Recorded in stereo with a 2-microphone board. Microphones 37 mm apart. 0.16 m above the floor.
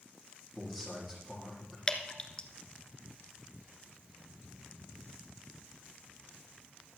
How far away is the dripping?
About 1.2 m.